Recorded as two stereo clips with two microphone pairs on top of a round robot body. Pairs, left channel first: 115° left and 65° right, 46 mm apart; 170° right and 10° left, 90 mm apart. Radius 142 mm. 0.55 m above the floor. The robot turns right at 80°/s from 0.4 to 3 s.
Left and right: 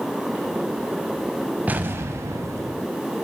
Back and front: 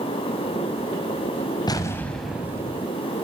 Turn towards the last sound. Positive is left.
turn(degrees=-20)